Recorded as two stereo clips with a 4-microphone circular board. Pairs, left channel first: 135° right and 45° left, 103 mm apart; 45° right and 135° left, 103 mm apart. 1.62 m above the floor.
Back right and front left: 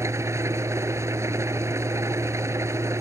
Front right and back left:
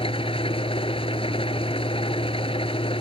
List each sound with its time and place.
0.0 s an engine running: 20° right